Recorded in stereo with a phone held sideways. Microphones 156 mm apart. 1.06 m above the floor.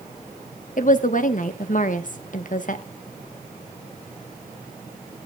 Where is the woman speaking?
60° left (ahead or behind), 1.0 m.